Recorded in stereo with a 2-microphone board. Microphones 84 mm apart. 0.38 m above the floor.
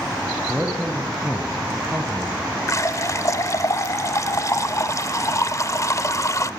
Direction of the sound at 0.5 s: 15° right (ahead or behind).